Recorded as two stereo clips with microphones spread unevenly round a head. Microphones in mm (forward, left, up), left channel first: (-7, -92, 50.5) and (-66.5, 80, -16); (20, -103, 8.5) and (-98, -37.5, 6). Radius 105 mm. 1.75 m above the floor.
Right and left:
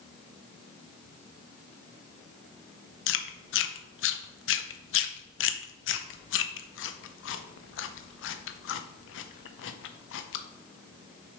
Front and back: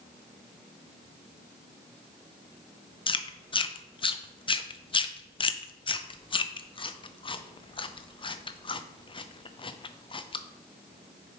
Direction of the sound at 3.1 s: 85° right.